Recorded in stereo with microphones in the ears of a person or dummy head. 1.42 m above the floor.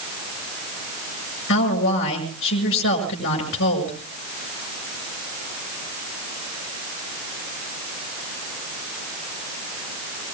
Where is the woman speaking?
65° left (ahead or behind), 6.5 m.